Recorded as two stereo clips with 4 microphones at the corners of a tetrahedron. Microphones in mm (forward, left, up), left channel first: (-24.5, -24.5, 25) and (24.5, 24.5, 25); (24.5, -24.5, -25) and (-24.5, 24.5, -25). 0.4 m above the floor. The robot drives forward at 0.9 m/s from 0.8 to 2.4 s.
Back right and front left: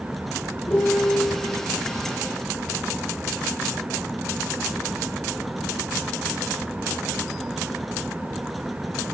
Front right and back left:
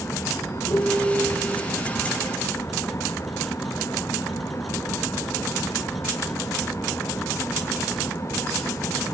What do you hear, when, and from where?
0.7 s a piano: 75° right, 0.5 m; by 1.4 s 135° right, 0.7 m